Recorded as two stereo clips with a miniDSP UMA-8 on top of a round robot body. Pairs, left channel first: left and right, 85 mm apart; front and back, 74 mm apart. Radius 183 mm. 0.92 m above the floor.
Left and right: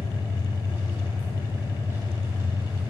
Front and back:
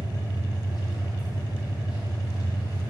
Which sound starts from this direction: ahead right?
An engine running, at 0.0 s.